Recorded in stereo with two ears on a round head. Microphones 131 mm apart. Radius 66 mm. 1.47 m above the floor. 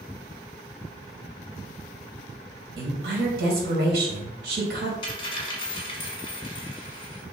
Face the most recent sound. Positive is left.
turn(degrees=35)  # may be behind; listen again after turning